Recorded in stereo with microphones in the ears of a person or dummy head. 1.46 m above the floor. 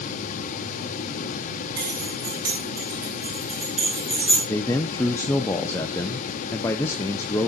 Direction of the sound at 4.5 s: 10° left (ahead or behind).